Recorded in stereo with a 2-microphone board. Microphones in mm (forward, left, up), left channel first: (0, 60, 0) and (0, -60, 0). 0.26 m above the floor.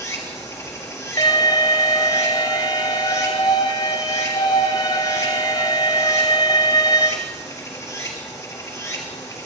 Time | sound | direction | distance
0.0 | running water | 25° left (ahead or behind) | 3 m
1.2 | an alarm | 35° left (ahead or behind) | 1.3 m